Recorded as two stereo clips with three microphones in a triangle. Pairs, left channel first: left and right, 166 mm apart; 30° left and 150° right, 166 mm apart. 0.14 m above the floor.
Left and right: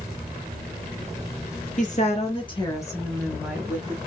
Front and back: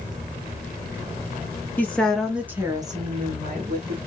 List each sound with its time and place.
1.8 s a woman speaking: 105° left, 2 m; by 4.0 s 160° right, 2 m